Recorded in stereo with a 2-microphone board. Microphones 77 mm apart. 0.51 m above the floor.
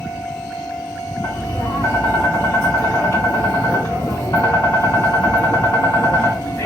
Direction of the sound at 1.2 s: 50° left (ahead or behind).